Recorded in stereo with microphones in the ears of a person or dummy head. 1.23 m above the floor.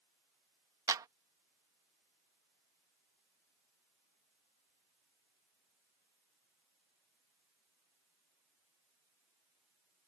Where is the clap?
20° right (ahead or behind).